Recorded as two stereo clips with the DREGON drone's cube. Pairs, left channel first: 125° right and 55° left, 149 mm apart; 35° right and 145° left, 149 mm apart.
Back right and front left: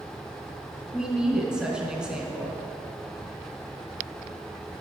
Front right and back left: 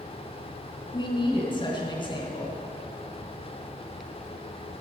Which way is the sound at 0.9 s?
25° right.